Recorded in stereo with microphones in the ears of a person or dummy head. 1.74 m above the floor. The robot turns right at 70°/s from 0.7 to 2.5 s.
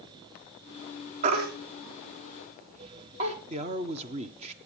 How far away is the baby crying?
About 1.5 m.